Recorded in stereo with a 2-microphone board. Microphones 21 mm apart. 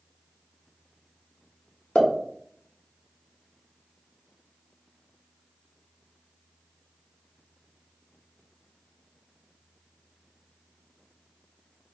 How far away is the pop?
About 0.9 m.